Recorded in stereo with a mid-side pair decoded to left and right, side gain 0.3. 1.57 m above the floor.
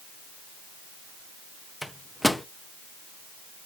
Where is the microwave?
10° left, 0.9 m.